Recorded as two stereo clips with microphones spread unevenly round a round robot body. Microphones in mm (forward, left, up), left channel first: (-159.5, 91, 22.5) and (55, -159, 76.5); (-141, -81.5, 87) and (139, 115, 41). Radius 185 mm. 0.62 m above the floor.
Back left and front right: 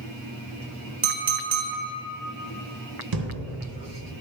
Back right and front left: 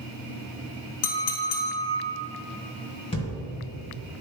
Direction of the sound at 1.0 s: 115° right.